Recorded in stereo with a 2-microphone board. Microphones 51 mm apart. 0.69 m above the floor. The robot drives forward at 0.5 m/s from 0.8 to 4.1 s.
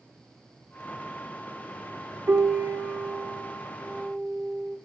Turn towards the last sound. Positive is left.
turn(degrees=-45)  # may be behind; listen again after turning